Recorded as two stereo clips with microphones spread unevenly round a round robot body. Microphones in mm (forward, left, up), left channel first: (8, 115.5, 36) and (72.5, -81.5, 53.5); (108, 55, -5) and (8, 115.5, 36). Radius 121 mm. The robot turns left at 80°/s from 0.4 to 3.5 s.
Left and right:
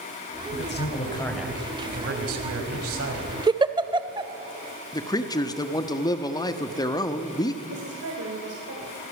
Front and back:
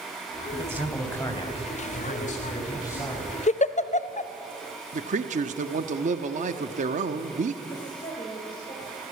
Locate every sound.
0.5 s a man speaking: 90° left, 4.5 m; by 3.4 s 140° right, 4.5 m
3.5 s a giggle: straight ahead, 1.0 m
4.9 s a man speaking: 165° left, 1.4 m
7.7 s a woman speaking: 90° right, 3.5 m